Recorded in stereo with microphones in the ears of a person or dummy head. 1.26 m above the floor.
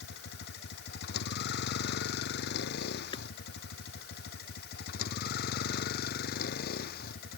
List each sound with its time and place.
0.0 s a vehicle: 60° left (ahead or behind); by 7.4 s 55° left (ahead or behind)
3.1 s hammering: 30° left (ahead or behind)